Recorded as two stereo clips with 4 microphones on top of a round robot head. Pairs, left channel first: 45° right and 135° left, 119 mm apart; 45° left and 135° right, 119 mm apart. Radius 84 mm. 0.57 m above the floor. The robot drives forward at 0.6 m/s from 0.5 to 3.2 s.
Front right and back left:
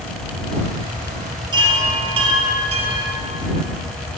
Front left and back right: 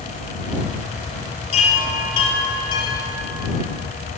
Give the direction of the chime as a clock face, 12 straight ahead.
9 o'clock.